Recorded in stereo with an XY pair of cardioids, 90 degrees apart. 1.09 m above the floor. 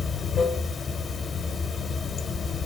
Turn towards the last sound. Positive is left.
turn(degrees=50)